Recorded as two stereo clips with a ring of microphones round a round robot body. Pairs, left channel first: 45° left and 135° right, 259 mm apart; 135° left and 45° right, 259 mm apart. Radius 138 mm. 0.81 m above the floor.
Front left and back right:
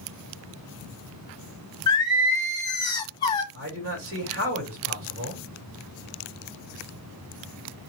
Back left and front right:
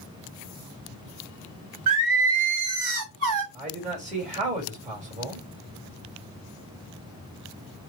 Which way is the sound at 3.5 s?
105° right.